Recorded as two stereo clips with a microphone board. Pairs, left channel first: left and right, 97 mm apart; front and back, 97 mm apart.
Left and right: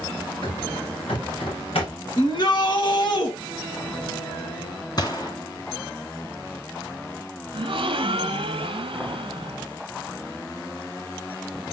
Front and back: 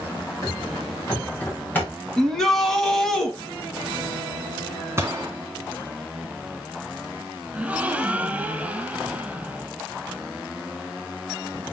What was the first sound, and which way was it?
Running footsteps, 60° left.